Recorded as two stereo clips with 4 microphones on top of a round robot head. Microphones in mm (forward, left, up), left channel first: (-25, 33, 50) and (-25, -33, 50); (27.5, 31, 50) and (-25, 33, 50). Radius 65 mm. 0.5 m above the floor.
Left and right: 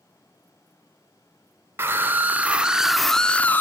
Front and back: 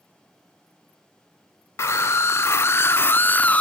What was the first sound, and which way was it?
A scream, 35° right.